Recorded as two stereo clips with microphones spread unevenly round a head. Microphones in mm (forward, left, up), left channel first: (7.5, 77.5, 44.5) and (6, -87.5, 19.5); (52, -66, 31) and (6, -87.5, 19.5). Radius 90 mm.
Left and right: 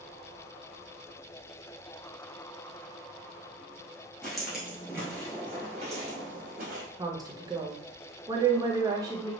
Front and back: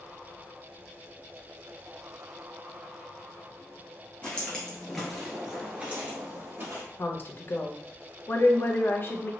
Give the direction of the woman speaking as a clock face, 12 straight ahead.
1 o'clock.